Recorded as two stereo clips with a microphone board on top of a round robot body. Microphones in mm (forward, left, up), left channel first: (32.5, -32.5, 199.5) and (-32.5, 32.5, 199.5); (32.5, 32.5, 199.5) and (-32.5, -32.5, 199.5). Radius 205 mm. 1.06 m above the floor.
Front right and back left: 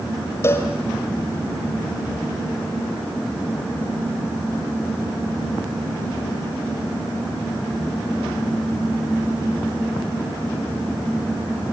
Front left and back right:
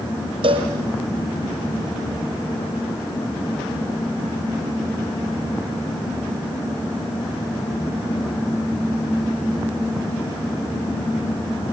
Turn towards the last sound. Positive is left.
turn(degrees=-110)